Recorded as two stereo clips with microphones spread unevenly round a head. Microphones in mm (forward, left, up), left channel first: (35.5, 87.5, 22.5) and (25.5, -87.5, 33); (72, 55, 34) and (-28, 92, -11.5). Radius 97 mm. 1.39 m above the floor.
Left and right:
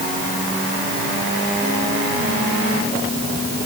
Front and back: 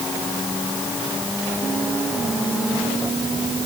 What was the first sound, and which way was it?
Only background noise.